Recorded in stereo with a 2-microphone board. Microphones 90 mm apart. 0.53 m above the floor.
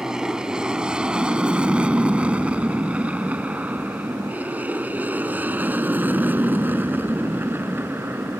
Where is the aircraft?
5° right (ahead or behind); by 8.4 s 25° right (ahead or behind).